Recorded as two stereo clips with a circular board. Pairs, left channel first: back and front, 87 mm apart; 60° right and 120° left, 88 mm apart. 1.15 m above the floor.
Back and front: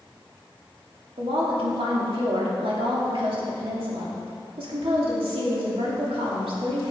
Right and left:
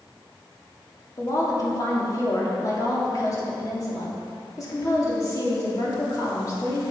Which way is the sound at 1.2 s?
10° right.